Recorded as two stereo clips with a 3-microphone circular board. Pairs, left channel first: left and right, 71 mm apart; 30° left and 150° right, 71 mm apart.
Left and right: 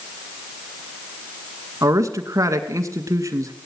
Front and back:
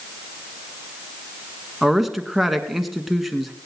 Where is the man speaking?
60° right, 1.9 m.